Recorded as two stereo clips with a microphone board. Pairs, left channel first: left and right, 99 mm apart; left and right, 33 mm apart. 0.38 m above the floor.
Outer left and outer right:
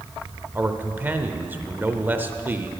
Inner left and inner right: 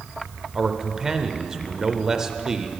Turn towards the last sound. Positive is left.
turn(degrees=-20)  # may be behind; listen again after turning